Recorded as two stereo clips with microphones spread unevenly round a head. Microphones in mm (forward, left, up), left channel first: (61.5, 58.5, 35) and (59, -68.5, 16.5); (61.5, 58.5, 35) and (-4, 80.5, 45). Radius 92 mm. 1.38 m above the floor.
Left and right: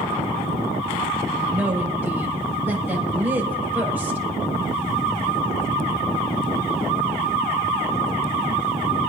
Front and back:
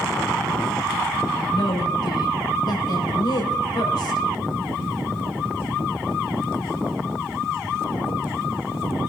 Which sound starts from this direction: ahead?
A woman speaking, at 1.5 s.